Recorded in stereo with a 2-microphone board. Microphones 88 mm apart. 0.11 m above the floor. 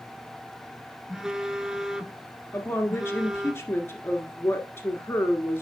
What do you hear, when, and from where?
1.1 s a phone buzzing: 5° right (ahead or behind), 0.7 m
2.5 s a woman speaking: 30° left (ahead or behind), 1.5 m